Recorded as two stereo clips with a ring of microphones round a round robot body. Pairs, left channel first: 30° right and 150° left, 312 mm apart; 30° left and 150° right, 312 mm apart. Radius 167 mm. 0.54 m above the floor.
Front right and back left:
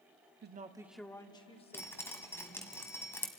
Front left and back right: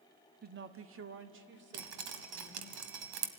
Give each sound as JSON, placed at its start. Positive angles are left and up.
{"t": 0.4, "sound": "a woman speaking", "azimuth_deg": 170, "distance_m": 0.9}
{"t": 1.7, "sound": "dripping", "azimuth_deg": -110, "distance_m": 1.3}